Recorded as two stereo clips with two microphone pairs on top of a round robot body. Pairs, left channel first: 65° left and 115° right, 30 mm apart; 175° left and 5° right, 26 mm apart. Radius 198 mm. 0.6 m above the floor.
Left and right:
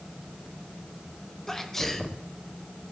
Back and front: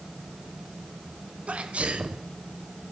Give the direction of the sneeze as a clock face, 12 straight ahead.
1 o'clock.